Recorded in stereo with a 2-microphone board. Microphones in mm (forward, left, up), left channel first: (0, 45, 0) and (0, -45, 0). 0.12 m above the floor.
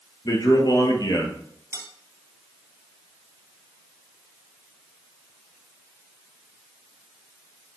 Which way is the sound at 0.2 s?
45° left (ahead or behind).